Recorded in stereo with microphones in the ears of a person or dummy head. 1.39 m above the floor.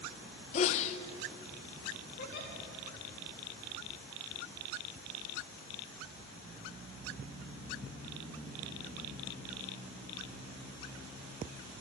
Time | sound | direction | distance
0.5 | a sneeze | 40° left (ahead or behind) | 0.6 m
2.2 | a giggle | 55° left (ahead or behind) | 1.4 m